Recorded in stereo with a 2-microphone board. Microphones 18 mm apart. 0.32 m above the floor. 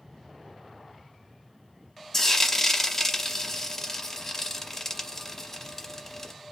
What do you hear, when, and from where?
2.1 s frying: 25° left (ahead or behind), 0.7 m